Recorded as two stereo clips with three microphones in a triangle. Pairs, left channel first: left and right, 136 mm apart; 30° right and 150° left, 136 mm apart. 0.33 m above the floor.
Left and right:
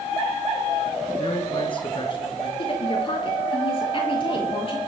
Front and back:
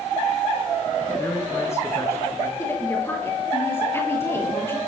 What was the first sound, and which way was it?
A man speaking, 40° left.